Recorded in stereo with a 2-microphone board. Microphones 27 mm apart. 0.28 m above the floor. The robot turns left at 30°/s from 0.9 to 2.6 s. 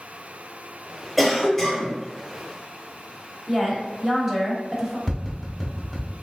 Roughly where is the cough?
Centre.